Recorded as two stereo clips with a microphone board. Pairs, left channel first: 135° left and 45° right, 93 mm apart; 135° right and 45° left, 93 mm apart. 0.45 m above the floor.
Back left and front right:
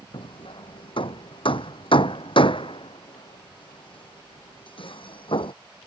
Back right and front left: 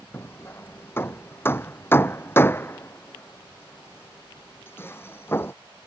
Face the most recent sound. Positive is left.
turn(degrees=160)